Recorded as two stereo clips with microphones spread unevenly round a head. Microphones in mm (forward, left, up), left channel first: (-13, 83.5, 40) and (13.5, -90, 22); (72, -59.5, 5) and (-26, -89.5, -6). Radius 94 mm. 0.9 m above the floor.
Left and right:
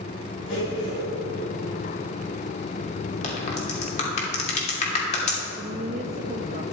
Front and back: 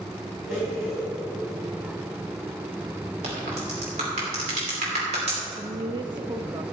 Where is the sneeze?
No sneeze in this recording.